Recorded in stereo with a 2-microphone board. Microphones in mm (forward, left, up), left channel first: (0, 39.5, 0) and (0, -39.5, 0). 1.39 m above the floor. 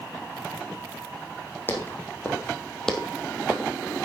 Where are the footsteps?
25° left (ahead or behind), 3.5 m; by 3.7 s 25° right (ahead or behind), 2.0 m.